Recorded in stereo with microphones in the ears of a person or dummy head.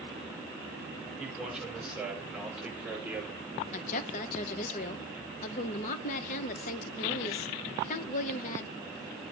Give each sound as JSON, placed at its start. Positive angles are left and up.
{"t": 1.2, "sound": "a man speaking", "side_deg": -5, "distance_m": 6.5}
{"t": 3.7, "sound": "a woman speaking", "side_deg": 40, "distance_m": 1.0}